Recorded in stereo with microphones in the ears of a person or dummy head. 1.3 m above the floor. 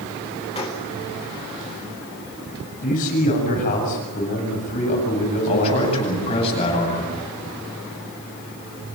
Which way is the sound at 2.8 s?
45° left (ahead or behind).